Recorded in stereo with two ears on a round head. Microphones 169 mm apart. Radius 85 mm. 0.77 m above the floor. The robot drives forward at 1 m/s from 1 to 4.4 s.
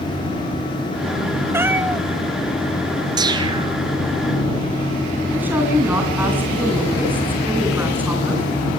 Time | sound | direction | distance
1.5 | a cat meowing | 15° right (ahead or behind) | 1.0 m
3.2 | a whoosh | 20° right (ahead or behind) | 3 m
5.3 | a woman speaking | 10° right (ahead or behind) | 8 m